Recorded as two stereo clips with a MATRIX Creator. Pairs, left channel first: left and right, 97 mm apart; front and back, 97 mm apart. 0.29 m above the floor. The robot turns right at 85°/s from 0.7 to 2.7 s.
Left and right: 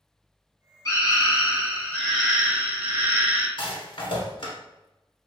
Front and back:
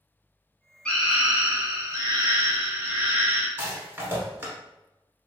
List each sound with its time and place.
0.8 s a scream: 70° left, 1.2 m; by 3.5 s 135° right, 1.2 m
3.6 s a rattle: 115° left, 1.2 m